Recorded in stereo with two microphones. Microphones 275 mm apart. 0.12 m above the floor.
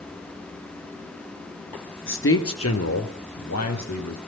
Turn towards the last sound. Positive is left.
turn(degrees=75)  # may be behind; listen again after turning